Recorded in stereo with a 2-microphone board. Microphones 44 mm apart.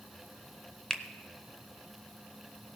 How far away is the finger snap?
About 0.6 m.